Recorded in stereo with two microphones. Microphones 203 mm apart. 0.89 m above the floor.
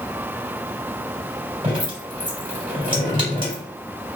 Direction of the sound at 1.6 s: 25° right (ahead or behind).